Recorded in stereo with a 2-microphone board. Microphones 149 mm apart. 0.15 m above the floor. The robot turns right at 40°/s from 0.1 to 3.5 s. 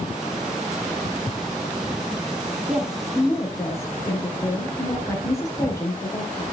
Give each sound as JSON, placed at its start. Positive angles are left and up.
{"t": 1.1, "sound": "footsteps", "side_deg": 35, "distance_m": 1.4}
{"t": 2.7, "sound": "a woman speaking", "azimuth_deg": -10, "distance_m": 4.0}